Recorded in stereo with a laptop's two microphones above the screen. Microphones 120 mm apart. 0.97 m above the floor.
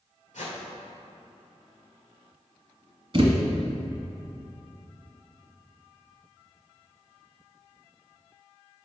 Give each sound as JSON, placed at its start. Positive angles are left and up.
{"t": 0.3, "sound": "a whoosh", "side_deg": 85, "distance_m": 2.0}
{"t": 3.1, "sound": "a thud", "side_deg": -45, "distance_m": 1.2}